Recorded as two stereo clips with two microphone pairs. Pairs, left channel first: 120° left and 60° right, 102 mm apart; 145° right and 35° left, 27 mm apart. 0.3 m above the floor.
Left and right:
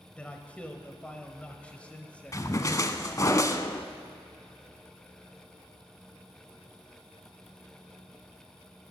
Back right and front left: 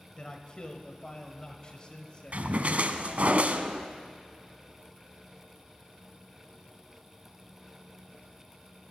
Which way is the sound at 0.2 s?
170° right.